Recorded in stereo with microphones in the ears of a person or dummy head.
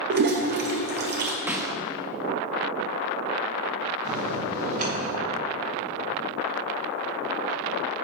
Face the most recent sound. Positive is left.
turn(degrees=-40)  # may be behind; listen again after turning